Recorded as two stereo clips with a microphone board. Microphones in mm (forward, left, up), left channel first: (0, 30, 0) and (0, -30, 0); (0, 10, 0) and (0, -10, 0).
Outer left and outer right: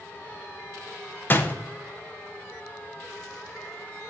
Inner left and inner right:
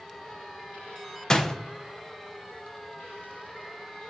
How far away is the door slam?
About 0.8 m.